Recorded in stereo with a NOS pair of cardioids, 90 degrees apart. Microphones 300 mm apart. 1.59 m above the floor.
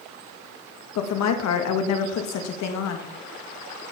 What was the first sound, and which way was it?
A woman speaking, 65° left.